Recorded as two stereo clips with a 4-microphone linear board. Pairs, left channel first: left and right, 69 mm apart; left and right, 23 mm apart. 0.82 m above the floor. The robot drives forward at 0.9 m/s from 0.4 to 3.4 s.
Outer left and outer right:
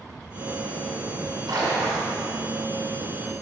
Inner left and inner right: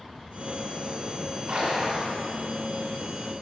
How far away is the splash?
About 1.9 m.